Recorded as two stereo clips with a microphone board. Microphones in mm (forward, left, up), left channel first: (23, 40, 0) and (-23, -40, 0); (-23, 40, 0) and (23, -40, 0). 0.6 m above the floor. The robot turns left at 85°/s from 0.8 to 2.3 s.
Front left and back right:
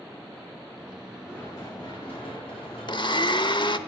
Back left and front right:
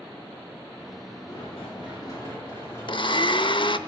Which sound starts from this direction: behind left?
Running footsteps, at 1.3 s.